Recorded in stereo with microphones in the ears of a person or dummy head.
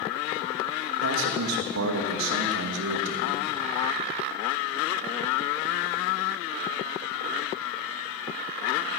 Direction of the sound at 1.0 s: 80° right.